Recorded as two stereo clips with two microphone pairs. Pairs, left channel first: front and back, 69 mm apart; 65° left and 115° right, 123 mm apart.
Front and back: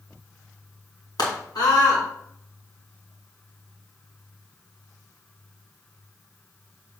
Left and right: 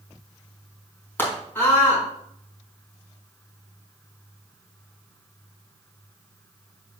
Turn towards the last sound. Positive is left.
turn(degrees=-10)